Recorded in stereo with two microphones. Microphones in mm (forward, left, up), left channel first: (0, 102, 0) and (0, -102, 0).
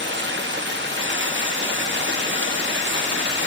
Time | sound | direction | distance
0.0 | running water | 65° right (ahead or behind) | 2 m